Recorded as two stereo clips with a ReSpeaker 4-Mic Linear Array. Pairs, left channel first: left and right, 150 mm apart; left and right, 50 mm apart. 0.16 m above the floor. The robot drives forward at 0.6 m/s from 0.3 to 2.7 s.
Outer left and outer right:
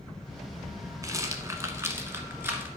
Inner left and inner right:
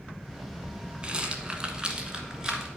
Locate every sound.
1.0 s a rattle: 25° right (ahead or behind), 1.1 m; by 2.7 s 15° right (ahead or behind), 1.7 m